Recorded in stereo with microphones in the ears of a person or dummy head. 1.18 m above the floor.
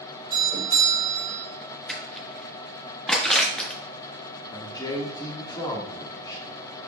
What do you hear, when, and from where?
0.3 s a doorbell: 20° right (ahead or behind), 1.4 m
1.9 s crushing: 5° left (ahead or behind), 1.4 m
4.5 s a man speaking: 25° left (ahead or behind), 1.5 m